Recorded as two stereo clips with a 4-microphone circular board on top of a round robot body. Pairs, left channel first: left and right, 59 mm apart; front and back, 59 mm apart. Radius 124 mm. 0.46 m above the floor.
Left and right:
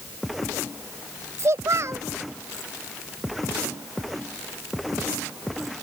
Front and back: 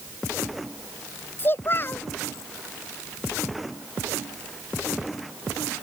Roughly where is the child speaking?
Ahead right.